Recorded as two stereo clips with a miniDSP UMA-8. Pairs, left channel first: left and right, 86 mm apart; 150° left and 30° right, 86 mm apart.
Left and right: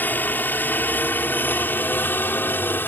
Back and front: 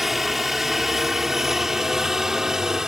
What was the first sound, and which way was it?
A helicopter, 55° left.